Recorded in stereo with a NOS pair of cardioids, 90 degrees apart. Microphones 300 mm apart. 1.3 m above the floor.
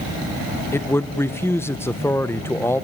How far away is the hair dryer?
No hair dryer in this recording.